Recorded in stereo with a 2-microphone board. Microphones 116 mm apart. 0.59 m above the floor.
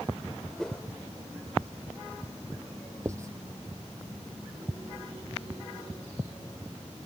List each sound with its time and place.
0.6 s a whoosh: 5° left (ahead or behind)
3.0 s writing: 25° right (ahead or behind)